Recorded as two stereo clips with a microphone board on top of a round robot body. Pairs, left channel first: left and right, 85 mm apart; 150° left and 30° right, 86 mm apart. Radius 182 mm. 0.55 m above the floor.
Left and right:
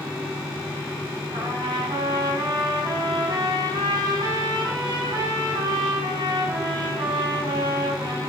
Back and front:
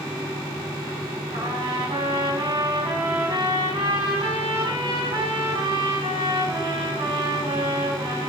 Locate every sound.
1.3 s a trumpet: 50° right, 4.5 m